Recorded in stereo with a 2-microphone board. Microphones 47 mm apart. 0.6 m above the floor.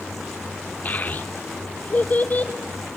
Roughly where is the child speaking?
Left.